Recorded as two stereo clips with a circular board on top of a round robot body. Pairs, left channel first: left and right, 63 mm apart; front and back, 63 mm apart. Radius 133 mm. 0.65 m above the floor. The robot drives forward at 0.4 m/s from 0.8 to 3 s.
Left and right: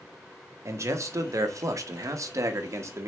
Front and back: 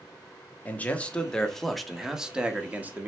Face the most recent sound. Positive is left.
turn(degrees=-120)